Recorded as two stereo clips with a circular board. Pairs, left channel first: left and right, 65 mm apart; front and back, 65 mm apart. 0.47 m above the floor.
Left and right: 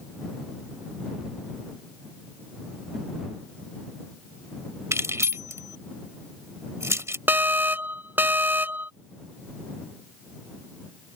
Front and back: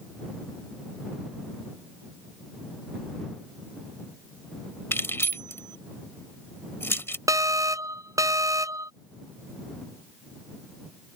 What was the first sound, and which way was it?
Keys jangling, 50° right.